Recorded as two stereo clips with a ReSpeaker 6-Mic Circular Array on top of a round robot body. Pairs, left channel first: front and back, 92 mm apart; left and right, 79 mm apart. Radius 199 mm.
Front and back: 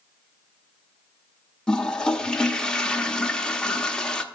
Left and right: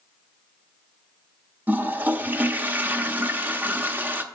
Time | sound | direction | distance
1.7 | a toilet flushing | 70° right | 0.9 m